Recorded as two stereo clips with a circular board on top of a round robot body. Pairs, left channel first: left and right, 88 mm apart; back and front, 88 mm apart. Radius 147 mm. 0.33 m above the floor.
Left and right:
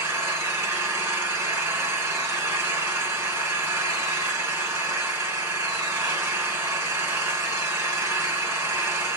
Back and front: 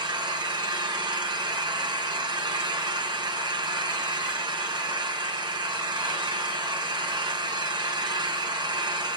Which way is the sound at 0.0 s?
25° right.